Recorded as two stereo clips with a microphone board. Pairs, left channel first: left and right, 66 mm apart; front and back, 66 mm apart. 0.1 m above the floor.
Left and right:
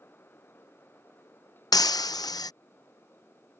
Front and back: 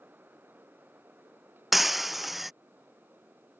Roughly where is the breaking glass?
Left.